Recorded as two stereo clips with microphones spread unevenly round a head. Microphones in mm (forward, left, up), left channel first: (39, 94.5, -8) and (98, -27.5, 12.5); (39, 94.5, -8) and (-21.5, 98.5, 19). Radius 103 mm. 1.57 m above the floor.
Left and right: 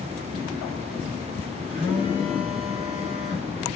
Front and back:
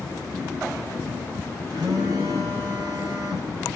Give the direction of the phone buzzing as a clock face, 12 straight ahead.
4 o'clock.